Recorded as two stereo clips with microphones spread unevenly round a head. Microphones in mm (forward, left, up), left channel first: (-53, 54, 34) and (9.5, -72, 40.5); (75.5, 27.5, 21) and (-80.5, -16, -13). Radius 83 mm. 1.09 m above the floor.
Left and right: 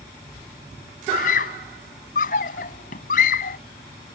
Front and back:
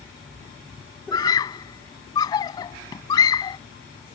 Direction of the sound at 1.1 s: 80° left.